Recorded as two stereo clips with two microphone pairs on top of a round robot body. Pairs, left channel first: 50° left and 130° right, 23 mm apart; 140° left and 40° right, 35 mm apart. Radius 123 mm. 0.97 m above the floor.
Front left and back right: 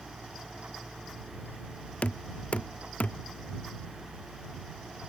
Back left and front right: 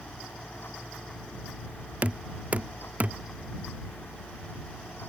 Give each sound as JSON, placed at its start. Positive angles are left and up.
{"t": 2.0, "sound": "knocking", "azimuth_deg": 10}